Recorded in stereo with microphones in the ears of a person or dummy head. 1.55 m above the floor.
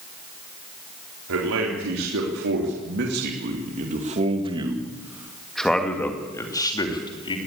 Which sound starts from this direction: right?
A man speaking, at 1.3 s.